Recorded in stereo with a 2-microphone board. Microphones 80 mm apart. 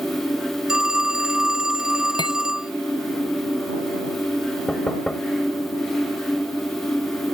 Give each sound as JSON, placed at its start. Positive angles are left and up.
{"t": 0.7, "sound": "a phone ringing", "side_deg": -10}
{"t": 2.2, "sound": "cutlery clinking", "side_deg": 70}
{"t": 4.7, "sound": "knocking", "side_deg": 10}